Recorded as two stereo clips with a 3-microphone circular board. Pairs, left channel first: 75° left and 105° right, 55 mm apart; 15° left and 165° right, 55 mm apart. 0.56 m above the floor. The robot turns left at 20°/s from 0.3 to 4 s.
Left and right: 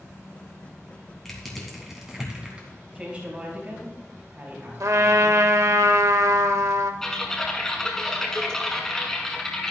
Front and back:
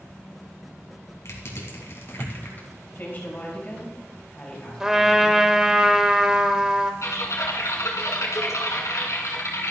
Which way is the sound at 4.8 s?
85° right.